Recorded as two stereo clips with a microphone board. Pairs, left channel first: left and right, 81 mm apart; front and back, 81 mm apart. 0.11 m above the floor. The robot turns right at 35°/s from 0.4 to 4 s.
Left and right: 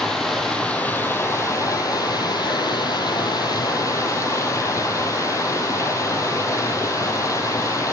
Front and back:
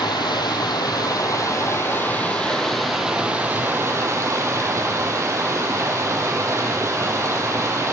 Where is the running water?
5° left, 0.7 m; by 7.9 s 130° left, 0.7 m.